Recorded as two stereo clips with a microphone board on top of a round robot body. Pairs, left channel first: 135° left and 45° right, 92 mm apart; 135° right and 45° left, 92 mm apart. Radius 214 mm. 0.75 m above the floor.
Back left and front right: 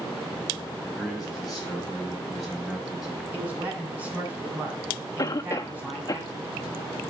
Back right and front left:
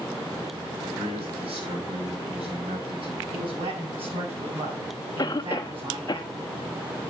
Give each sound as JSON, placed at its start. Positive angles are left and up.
{"t": 0.8, "sound": "a man speaking", "azimuth_deg": 45, "distance_m": 6.0}
{"t": 3.3, "sound": "a man speaking", "azimuth_deg": 25, "distance_m": 7.5}
{"t": 5.2, "sound": "a cough", "azimuth_deg": 180, "distance_m": 0.8}